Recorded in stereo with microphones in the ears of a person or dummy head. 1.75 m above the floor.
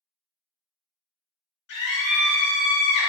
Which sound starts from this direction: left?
A scream, at 1.7 s.